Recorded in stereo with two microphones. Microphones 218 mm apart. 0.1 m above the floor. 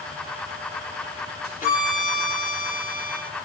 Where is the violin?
40° left (ahead or behind), 1.3 m.